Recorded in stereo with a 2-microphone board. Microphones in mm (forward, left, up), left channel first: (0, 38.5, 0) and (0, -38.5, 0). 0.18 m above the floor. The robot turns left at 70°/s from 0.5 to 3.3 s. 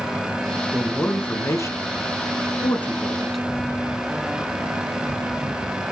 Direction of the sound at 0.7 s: Centre (ahead or behind).